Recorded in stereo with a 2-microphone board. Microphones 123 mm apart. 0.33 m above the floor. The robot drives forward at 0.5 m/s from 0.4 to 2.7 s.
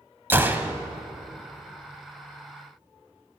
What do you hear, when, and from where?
0.3 s a gunshot: 20° right (ahead or behind), 0.7 m; by 0.8 s 15° right (ahead or behind), 0.8 m